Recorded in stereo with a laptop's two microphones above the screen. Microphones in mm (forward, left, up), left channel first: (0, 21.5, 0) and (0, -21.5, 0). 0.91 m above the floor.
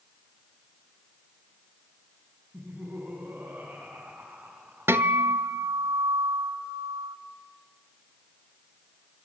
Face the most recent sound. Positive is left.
turn(degrees=-75)  # may be behind; listen again after turning